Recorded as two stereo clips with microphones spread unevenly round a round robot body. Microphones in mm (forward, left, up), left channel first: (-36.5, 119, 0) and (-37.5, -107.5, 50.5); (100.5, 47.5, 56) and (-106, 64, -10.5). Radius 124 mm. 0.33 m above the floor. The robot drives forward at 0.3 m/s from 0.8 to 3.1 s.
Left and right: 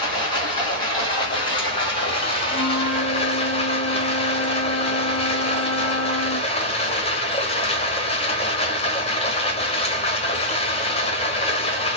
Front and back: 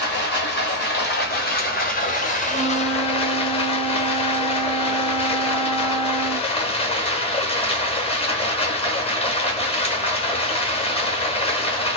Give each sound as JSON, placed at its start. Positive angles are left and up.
{"t": 0.0, "sound": "running water", "azimuth_deg": 35, "distance_m": 1.5}
{"t": 2.5, "sound": "a flute", "azimuth_deg": 90, "distance_m": 1.1}